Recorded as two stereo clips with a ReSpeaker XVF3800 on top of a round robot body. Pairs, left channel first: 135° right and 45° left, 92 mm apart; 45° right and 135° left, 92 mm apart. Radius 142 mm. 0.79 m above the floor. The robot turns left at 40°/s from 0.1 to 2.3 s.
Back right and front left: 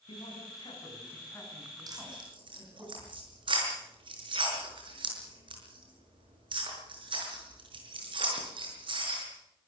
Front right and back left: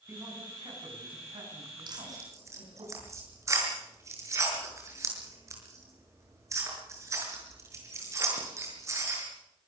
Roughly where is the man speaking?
Behind.